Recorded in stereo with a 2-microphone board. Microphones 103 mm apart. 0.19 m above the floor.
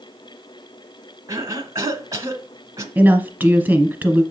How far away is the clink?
No clink in this recording.